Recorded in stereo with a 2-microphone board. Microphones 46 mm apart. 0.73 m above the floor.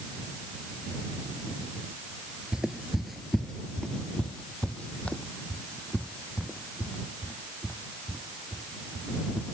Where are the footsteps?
15° right (ahead or behind); by 9.4 s 30° left (ahead or behind).